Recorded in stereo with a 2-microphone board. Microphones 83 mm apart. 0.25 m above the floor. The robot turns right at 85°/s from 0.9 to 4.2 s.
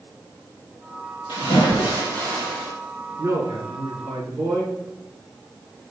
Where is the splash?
75° left, 4 m; by 2.7 s 165° right, 4 m.